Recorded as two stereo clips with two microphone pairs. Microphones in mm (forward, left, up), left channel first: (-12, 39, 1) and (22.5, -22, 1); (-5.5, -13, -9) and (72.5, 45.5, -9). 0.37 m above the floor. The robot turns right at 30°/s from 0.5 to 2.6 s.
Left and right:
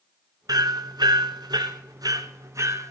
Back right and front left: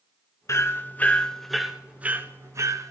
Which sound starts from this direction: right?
Hammering, at 0.5 s.